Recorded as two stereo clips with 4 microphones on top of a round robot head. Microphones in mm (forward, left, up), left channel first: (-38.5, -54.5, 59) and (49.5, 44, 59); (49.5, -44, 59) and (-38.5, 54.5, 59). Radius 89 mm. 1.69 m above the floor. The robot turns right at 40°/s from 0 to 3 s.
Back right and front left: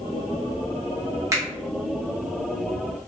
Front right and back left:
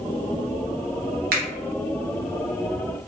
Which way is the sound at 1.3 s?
115° left.